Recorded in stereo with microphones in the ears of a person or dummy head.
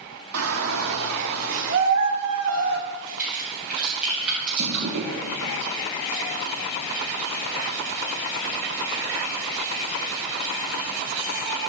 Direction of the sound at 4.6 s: 65° right (ahead or behind).